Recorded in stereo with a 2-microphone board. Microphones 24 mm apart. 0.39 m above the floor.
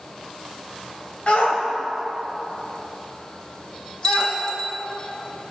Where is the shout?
55° left (ahead or behind), 1.7 m; by 4.4 s 35° left (ahead or behind), 3 m.